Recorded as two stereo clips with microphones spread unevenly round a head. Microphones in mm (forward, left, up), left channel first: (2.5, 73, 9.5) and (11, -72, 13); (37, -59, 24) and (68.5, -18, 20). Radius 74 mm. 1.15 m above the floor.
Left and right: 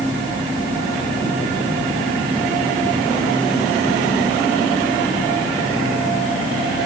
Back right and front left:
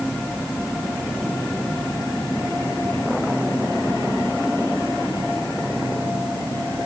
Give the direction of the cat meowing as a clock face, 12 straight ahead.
No cat meowing in this recording.